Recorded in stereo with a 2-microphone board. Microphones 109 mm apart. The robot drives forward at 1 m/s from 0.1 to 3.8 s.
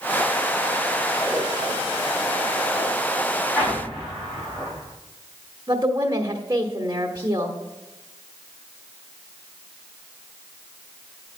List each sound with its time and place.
1.3 s a whoosh: 10° left (ahead or behind), 4 m
3.5 s an explosion: 15° left (ahead or behind), 5 m
5.7 s a woman speaking: 40° right (ahead or behind), 1.3 m